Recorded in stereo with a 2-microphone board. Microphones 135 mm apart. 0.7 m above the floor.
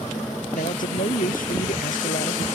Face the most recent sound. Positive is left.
turn(degrees=85)